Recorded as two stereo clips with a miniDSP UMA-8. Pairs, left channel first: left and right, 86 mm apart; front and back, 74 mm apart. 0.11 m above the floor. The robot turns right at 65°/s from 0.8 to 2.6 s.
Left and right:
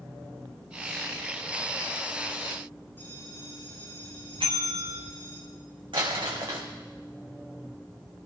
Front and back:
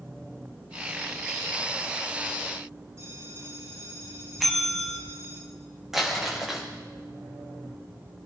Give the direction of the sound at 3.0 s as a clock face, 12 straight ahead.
7 o'clock.